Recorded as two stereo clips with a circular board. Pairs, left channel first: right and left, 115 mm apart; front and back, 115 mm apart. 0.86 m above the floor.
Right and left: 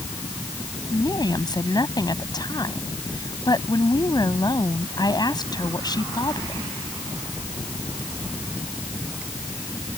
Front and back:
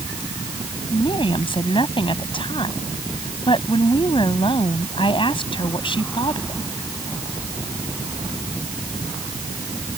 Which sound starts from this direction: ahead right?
A woman speaking, at 0.9 s.